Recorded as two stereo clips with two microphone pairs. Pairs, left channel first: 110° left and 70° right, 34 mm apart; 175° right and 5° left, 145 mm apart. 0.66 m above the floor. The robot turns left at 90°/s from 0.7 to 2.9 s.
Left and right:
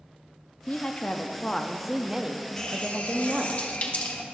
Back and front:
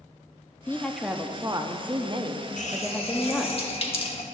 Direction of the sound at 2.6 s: Straight behind.